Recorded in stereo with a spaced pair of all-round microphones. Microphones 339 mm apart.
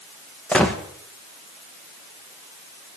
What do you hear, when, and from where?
0.5 s a gunshot: 5° left (ahead or behind), 1.4 m